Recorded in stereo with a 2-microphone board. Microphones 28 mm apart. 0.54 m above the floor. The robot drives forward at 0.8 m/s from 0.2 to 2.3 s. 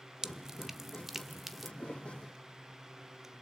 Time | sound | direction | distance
0.2 | dripping | 25° right (ahead or behind) | 0.5 m
1.8 | a thud | 50° left (ahead or behind) | 3.5 m